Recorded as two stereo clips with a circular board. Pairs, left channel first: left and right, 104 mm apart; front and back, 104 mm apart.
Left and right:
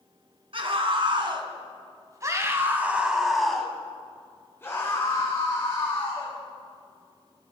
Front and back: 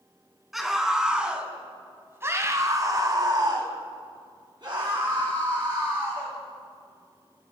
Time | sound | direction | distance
0.5 | a scream | 90° right | 1.8 m